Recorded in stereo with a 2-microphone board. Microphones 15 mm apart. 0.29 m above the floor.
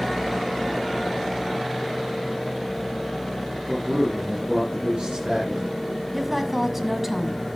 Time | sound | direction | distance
3.7 | a man speaking | 75° right (ahead or behind) | 3.5 m
6.1 | a woman speaking | 10° right (ahead or behind) | 1.8 m